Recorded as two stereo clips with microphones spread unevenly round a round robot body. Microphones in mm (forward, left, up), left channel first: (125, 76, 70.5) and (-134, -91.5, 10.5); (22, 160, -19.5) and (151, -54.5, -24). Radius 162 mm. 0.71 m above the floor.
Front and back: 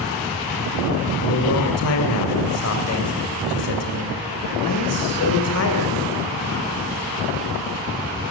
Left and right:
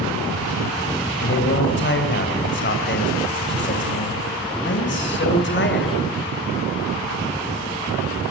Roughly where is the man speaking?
Left.